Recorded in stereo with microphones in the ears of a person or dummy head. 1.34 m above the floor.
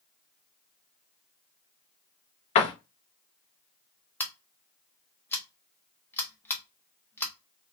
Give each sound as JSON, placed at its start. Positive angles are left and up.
{"t": 2.5, "sound": "a door slam", "side_deg": 35, "distance_m": 0.5}
{"t": 4.2, "sound": "scissors", "side_deg": 10, "distance_m": 0.6}